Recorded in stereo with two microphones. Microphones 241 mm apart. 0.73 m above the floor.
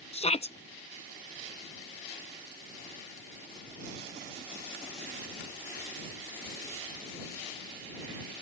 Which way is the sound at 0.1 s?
25° left (ahead or behind).